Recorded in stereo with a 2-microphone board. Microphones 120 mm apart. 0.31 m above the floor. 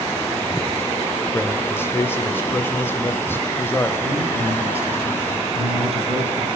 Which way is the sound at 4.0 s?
55° right (ahead or behind).